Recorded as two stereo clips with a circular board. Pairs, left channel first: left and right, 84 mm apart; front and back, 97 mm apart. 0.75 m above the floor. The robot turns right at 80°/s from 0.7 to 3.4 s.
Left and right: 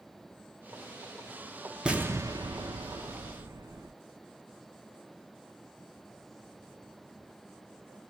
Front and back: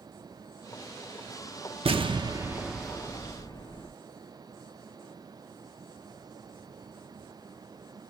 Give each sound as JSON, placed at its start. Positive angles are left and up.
{"t": 1.9, "sound": "an explosion", "azimuth_deg": -170, "distance_m": 0.7}